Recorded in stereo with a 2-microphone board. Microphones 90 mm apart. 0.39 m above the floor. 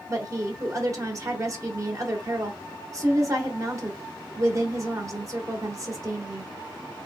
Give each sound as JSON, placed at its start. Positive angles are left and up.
{"t": 0.1, "sound": "a woman speaking", "side_deg": -35, "distance_m": 1.0}